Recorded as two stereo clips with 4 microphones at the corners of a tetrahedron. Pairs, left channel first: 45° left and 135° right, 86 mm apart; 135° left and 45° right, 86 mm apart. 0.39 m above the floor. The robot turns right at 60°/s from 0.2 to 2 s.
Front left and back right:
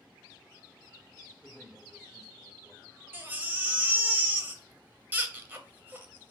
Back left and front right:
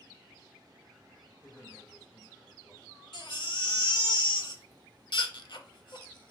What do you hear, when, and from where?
1.4 s a woman speaking: 100° left, 1.5 m; by 3.0 s 135° left, 1.5 m
3.1 s a baby crying: 155° left, 0.6 m